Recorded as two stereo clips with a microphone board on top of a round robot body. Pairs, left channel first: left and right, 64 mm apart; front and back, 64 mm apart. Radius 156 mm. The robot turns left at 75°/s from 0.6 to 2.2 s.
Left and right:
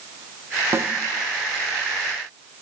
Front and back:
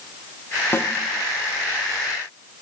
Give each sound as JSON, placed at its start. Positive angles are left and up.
{"t": 0.7, "sound": "a snare drum", "azimuth_deg": -45, "distance_m": 1.2}